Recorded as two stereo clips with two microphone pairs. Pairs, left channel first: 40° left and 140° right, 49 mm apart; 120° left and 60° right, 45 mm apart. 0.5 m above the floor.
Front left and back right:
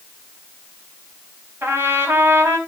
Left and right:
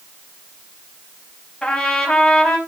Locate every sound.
1.6 s a trumpet: 170° right, 4 m